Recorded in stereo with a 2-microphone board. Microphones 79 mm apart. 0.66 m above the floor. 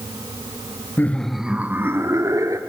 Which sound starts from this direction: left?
Laughter, at 1.0 s.